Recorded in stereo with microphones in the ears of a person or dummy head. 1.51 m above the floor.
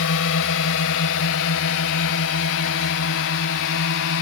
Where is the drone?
75° left (ahead or behind); by 4.2 s 85° left.